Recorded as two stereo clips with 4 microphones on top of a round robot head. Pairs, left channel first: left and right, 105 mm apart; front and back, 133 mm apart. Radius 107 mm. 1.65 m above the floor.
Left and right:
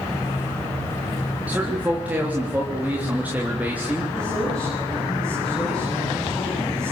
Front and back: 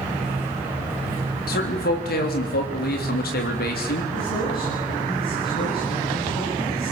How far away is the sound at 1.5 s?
About 3.5 m.